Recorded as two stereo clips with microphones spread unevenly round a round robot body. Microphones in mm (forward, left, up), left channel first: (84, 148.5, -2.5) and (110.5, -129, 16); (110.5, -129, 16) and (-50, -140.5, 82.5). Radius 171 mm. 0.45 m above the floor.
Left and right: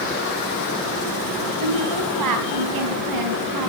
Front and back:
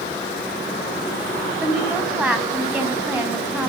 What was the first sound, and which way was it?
A woman speaking, 90° right.